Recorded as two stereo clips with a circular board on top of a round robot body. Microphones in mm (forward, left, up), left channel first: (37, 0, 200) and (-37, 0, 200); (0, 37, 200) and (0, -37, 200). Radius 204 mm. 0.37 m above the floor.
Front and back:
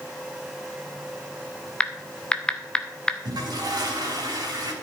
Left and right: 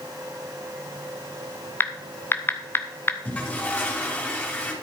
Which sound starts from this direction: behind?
A toilet flushing, at 3.2 s.